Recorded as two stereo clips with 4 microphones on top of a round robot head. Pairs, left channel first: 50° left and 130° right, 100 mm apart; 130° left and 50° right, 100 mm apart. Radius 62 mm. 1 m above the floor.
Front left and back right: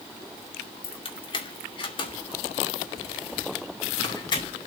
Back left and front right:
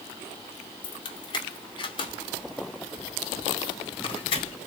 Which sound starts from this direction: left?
Keys jangling, at 0.8 s.